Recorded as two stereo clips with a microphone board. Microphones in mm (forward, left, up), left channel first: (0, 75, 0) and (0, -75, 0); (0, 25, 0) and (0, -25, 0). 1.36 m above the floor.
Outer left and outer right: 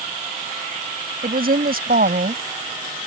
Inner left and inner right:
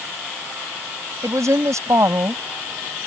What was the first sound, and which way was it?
A woman speaking, 85° right.